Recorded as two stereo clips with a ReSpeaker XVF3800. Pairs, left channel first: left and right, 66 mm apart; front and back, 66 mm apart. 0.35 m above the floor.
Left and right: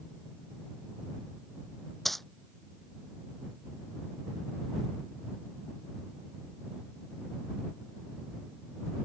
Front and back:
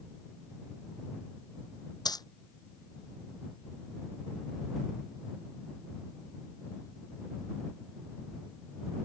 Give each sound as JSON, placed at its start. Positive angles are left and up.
{"t": 2.0, "sound": "a dropped coin", "azimuth_deg": 0}